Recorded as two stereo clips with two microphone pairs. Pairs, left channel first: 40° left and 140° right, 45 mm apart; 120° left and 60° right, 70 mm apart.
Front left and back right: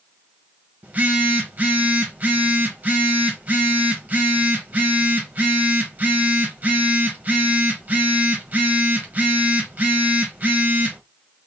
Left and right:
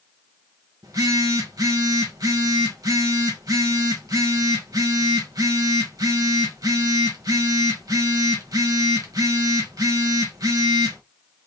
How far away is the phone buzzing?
About 1.6 m.